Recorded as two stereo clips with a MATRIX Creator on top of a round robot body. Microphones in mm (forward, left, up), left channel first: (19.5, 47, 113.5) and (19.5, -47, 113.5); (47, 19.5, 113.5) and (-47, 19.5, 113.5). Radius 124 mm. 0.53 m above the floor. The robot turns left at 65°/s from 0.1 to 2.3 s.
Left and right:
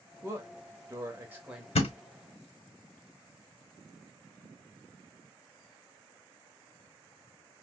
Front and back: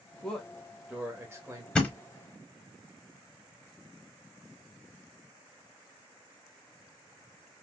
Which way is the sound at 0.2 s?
70° right.